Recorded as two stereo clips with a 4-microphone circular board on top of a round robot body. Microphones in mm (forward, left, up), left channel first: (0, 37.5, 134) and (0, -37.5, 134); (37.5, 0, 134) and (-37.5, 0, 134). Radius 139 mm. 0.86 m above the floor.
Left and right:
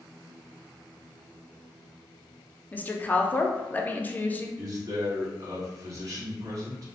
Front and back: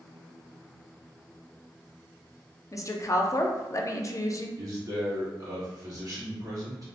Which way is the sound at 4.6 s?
135° right.